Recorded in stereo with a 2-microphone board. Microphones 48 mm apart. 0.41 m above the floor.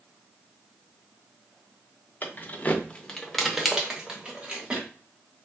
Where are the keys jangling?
40° left (ahead or behind), 0.7 m; by 4.9 s 25° right (ahead or behind), 1.2 m.